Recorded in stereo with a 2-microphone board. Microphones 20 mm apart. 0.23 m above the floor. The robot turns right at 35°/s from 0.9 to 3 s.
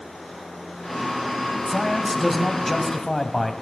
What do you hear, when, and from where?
1.7 s a man speaking: centre (ahead or behind), 1.4 m; by 3.5 s 20° left (ahead or behind), 1.4 m